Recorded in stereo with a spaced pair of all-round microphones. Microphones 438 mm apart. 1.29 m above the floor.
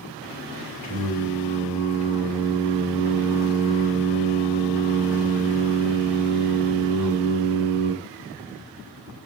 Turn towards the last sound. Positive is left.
turn(degrees=50)  # may be behind; listen again after turning